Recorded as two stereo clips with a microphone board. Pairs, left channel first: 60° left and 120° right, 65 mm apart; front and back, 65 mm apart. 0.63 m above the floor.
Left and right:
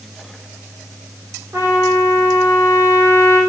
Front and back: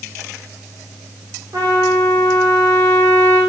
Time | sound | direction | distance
1.5 | a trumpet | 170° right | 2.5 m